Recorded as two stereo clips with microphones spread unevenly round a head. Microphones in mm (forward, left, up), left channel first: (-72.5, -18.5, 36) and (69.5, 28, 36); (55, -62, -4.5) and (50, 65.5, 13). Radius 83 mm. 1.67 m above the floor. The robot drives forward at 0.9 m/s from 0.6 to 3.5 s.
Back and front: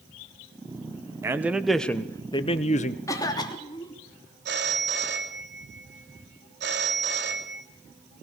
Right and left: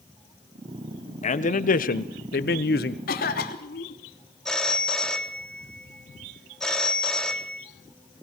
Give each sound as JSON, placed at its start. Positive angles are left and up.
{"t": 1.2, "sound": "a man speaking", "azimuth_deg": -55, "distance_m": 1.5}
{"t": 3.1, "sound": "a cough", "azimuth_deg": -90, "distance_m": 3.0}
{"t": 4.5, "sound": "a phone ringing", "azimuth_deg": 0, "distance_m": 2.5}